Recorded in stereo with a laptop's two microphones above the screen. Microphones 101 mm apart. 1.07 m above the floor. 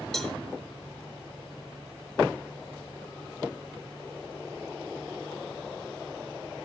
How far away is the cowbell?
About 1.3 m.